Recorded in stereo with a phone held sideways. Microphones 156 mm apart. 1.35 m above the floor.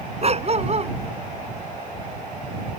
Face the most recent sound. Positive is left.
turn(degrees=-45)  # may be behind; listen again after turning